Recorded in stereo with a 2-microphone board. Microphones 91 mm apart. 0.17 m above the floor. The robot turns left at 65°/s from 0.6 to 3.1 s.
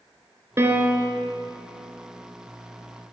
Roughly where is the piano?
Behind right.